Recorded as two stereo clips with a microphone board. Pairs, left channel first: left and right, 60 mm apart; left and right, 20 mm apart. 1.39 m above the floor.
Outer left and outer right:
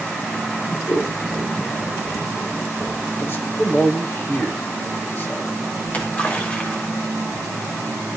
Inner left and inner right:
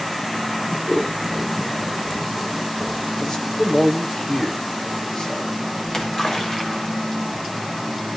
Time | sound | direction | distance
0.9 | scissors | 50° left (ahead or behind) | 3 m
3.2 | a man speaking | 40° left (ahead or behind) | 2.0 m
5.8 | a splash | 30° left (ahead or behind) | 1.7 m